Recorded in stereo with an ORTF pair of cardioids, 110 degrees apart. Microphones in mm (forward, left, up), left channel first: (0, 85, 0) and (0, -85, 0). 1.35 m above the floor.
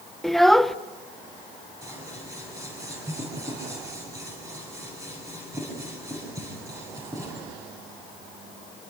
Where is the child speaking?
Straight ahead, 0.8 m.